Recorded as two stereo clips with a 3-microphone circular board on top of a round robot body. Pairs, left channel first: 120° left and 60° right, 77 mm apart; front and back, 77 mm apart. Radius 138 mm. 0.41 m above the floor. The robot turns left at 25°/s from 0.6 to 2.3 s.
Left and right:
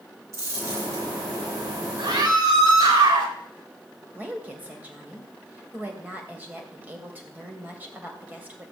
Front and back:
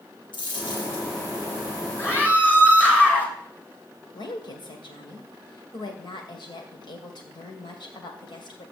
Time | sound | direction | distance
0.3 | a dropped coin | 10° right | 6 m
2.0 | a scream | 60° right | 3.5 m
4.1 | a woman speaking | 5° left | 2.5 m